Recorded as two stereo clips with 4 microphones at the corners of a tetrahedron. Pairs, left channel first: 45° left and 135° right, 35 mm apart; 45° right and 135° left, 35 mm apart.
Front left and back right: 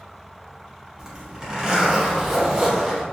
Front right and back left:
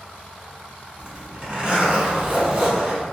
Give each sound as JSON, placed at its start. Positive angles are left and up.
{"t": 1.0, "sound": "a zipper", "azimuth_deg": 165, "distance_m": 1.1}